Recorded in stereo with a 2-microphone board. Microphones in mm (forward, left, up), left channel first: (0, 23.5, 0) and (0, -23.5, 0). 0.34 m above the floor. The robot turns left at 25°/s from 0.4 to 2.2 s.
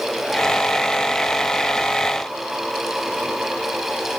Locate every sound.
Only background noise.